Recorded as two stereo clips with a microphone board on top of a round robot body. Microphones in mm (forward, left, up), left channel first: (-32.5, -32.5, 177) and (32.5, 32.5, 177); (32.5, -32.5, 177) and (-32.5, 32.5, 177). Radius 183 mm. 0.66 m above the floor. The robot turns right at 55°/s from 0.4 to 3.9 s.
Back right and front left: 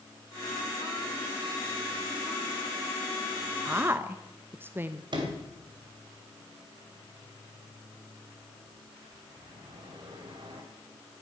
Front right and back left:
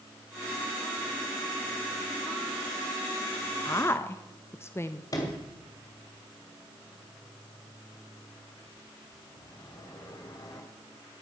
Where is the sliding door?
5° left, 2.5 m.